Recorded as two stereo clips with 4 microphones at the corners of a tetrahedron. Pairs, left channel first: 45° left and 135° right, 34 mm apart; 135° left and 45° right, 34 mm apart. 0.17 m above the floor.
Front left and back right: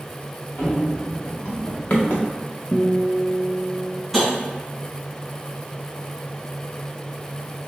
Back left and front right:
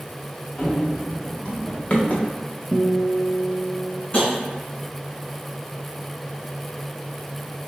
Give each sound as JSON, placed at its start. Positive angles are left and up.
{"t": 0.6, "sound": "running footsteps", "azimuth_deg": 70, "distance_m": 2.0}
{"t": 2.7, "sound": "a guitar", "azimuth_deg": -50, "distance_m": 1.0}
{"t": 4.1, "sound": "tapping", "azimuth_deg": 115, "distance_m": 1.9}